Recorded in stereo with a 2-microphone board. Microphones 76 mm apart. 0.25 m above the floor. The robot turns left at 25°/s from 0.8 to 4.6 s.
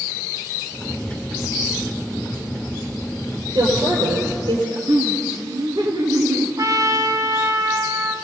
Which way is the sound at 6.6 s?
50° right (ahead or behind).